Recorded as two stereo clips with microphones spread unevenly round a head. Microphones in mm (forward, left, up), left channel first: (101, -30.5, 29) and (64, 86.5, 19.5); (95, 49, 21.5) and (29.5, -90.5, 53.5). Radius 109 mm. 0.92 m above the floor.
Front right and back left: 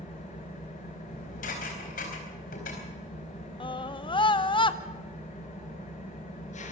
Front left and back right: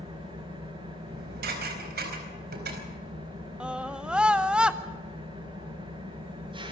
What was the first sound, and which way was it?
An engine running, 60° right.